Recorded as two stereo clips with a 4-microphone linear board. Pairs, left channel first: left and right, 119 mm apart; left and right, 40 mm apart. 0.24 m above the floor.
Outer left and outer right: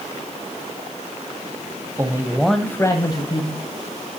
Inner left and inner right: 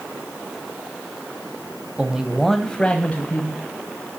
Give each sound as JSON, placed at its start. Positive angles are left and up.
{"t": 2.0, "sound": "a man speaking", "side_deg": -30, "distance_m": 1.0}